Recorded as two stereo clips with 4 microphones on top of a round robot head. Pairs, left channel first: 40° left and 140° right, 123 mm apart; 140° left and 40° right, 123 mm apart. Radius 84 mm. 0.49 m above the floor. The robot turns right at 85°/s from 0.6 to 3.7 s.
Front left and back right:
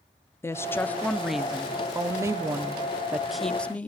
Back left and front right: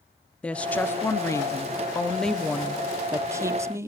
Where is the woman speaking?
75° left, 0.7 m; by 3.9 s 20° right, 0.7 m.